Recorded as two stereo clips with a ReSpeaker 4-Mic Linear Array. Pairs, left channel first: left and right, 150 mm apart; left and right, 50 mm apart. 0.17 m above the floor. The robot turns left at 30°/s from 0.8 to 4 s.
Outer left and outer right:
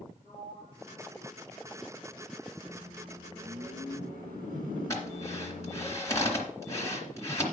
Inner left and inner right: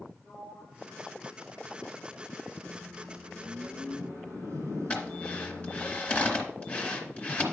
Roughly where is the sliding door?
Centre.